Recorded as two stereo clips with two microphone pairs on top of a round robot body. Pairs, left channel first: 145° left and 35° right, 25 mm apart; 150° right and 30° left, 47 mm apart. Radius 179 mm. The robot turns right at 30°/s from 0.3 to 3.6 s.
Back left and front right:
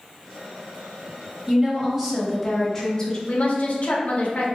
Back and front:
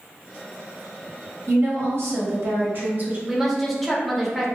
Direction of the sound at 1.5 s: 30° left.